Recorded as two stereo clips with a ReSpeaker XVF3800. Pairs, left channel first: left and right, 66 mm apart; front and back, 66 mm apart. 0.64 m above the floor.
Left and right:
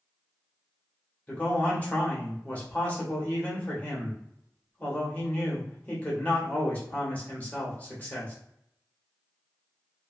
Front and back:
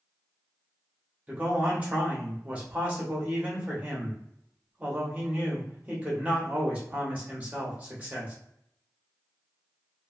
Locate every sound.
1.3 s a man speaking: 130° left, 1.0 m